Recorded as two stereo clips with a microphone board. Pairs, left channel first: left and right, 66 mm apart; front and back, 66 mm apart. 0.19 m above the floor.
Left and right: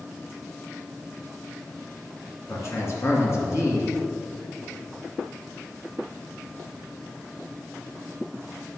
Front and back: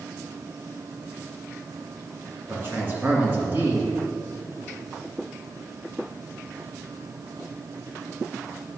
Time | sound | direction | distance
2.5 | a man speaking | 125° left | 2 m